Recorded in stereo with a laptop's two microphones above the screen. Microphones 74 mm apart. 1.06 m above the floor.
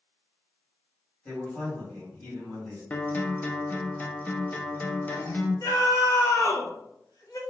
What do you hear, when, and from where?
1.2 s a man speaking: 20° left (ahead or behind), 1.7 m
2.9 s a guitar: 20° left (ahead or behind), 0.6 m
5.6 s a scream: 50° left (ahead or behind), 0.9 m